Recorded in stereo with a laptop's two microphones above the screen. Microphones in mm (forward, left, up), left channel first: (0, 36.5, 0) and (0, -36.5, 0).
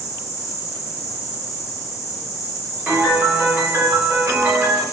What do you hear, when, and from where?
0.0 s an insect: 40° left (ahead or behind), 0.9 m
2.9 s a piano: 30° right (ahead or behind), 1.3 m